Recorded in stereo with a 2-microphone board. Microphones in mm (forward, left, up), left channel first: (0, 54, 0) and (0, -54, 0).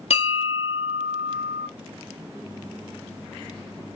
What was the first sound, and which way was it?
A bell, 70° left (ahead or behind).